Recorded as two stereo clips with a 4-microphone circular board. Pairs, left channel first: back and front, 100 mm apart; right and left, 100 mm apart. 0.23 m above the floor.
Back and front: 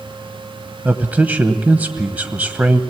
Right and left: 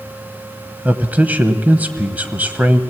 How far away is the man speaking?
About 0.9 m.